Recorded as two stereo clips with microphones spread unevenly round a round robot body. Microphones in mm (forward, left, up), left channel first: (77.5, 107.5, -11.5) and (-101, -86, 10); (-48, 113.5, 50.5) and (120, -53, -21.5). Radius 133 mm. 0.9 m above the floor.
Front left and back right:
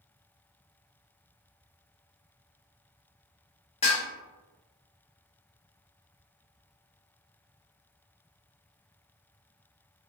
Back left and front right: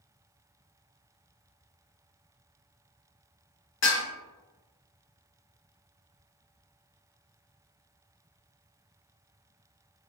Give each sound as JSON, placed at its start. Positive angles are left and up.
{"t": 3.8, "sound": "dishes clattering", "azimuth_deg": 115, "distance_m": 1.3}